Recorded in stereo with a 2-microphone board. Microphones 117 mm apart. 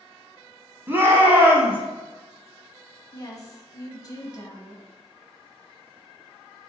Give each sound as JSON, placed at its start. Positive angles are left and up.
{"t": 0.9, "sound": "a shout", "side_deg": -20, "distance_m": 1.2}
{"t": 3.1, "sound": "a woman speaking", "side_deg": 35, "distance_m": 1.1}